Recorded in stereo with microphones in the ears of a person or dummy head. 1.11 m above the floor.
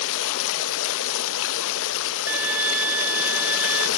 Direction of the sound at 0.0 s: 75° left (ahead or behind).